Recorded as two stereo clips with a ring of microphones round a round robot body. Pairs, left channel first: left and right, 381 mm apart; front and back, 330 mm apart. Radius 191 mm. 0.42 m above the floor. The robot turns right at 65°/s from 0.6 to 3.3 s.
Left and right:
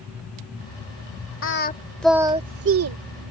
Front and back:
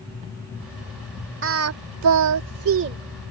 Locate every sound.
1.4 s singing: 140° left; by 3.0 s 120° right